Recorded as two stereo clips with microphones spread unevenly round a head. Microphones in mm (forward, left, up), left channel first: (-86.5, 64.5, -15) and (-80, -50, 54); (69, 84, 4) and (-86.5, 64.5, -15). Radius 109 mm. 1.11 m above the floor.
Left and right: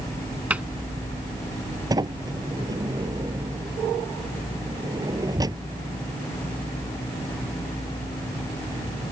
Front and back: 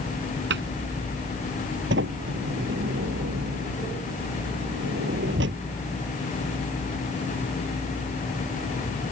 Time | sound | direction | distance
0.5 | a cupboard door | 165° right | ?
1.9 | a sliding door | 135° right | ?